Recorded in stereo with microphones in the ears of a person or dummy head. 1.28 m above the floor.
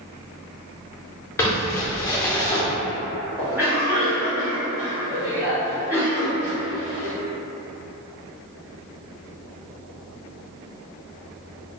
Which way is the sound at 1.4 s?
15° left (ahead or behind).